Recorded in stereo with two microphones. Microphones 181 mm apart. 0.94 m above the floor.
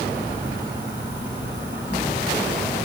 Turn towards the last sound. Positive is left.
turn(degrees=-15)  # may be behind; listen again after turning